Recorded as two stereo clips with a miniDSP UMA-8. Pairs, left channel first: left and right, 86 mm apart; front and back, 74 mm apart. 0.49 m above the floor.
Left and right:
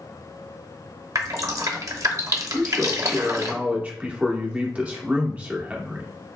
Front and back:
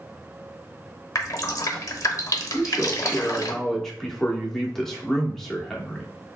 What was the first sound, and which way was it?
Dripping, 45° right.